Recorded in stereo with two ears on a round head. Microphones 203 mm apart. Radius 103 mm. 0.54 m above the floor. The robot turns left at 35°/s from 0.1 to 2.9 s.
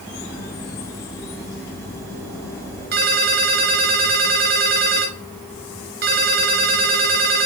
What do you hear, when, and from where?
2.9 s a ringtone: 40° right (ahead or behind), 4.5 m